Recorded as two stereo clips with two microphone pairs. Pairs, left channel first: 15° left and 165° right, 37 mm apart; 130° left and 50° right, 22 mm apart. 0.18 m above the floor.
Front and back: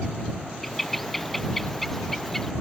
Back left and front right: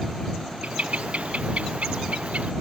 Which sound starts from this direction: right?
A bird, at 0.6 s.